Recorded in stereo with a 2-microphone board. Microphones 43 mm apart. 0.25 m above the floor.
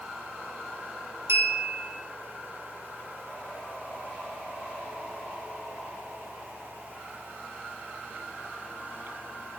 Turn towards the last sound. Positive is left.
turn(degrees=-75)  # may be behind; listen again after turning